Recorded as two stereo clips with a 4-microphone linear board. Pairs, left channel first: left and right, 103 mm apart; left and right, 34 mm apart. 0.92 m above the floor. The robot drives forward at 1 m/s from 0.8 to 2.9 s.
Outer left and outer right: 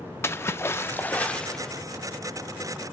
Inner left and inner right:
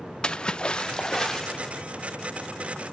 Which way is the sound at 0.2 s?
25° left (ahead or behind).